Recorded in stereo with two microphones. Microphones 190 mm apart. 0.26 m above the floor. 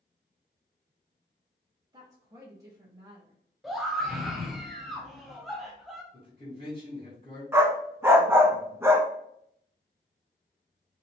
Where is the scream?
Centre (ahead or behind), 1.1 m.